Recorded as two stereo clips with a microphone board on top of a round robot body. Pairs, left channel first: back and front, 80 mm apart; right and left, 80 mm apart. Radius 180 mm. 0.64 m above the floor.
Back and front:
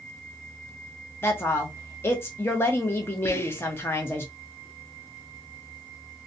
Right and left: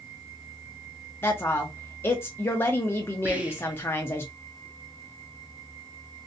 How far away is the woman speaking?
About 0.8 m.